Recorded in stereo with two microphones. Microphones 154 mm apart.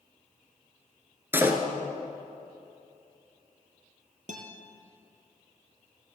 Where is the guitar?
60° right (ahead or behind), 1.7 m.